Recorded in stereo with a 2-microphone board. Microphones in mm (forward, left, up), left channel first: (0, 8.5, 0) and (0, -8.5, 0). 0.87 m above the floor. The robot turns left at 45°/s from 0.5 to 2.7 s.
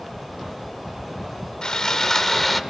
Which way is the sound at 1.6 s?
50° left.